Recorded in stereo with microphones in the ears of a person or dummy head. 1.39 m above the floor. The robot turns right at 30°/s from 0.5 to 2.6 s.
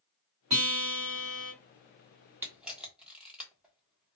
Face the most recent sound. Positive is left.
turn(degrees=0)  # may be behind; listen again after turning